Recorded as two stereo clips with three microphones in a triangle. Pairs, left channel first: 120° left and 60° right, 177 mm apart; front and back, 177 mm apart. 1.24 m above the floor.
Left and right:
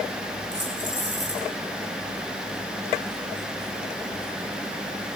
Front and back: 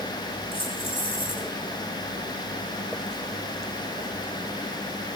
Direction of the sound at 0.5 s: 60° right.